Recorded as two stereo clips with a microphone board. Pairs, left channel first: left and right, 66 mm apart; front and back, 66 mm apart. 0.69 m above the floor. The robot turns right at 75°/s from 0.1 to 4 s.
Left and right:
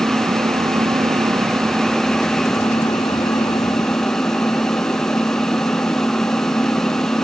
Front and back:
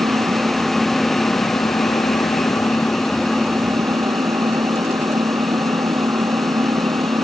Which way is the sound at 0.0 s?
145° right.